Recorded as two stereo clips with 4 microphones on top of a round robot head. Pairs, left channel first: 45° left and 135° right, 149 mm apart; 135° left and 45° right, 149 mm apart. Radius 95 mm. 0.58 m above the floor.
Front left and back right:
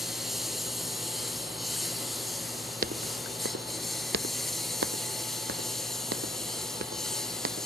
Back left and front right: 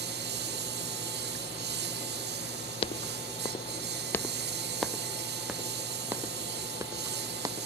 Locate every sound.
0.0 s a lawn mower: 45° right
2.8 s footsteps: 170° right; by 7.7 s 110° right